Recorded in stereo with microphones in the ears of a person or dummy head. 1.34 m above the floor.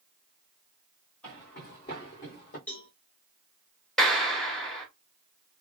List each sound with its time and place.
1.2 s footsteps: 10° left (ahead or behind), 1.8 m; by 2.6 s 35° left (ahead or behind), 1.8 m
2.7 s a cowbell: 5° left (ahead or behind), 0.5 m
4.0 s a clap: 5° left (ahead or behind), 0.9 m